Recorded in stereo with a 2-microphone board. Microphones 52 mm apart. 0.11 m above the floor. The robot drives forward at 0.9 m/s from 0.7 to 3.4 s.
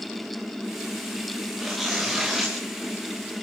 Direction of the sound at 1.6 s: Centre (ahead or behind).